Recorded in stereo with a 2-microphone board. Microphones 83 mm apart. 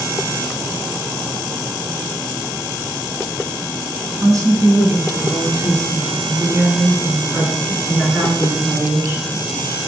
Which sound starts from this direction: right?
A woman speaking, at 4.2 s.